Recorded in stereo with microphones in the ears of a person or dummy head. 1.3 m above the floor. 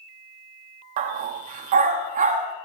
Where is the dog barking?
40° right (ahead or behind), 0.9 m.